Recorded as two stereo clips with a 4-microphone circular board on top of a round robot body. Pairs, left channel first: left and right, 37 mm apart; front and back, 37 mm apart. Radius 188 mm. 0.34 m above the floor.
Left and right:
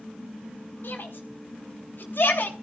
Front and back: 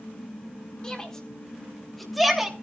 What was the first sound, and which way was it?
A shout, 70° left.